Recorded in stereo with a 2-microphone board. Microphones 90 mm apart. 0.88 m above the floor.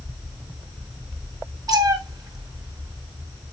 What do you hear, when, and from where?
1.7 s a cat meowing: 45° right (ahead or behind), 1.3 m